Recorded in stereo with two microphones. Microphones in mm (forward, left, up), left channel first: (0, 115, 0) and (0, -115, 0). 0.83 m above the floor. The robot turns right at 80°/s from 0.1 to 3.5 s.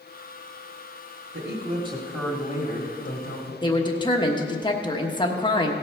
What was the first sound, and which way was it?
A man speaking, 65° right.